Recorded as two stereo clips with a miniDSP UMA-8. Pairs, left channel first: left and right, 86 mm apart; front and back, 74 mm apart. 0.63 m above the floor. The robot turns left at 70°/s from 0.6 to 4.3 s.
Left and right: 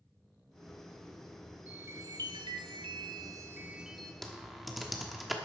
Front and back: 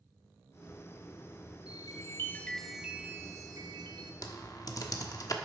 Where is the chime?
20° right, 1.0 m; by 4.1 s 170° left, 1.0 m.